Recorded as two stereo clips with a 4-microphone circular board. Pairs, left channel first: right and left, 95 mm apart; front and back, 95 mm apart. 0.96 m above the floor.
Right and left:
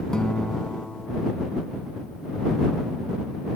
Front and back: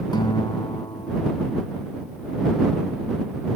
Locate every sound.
0.1 s a guitar: 5° right